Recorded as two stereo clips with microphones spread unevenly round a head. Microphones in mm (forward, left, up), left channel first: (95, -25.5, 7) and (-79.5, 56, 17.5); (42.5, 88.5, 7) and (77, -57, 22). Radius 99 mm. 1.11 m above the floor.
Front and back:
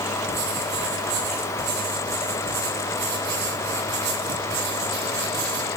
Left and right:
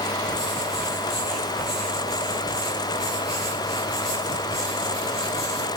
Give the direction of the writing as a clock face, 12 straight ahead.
6 o'clock.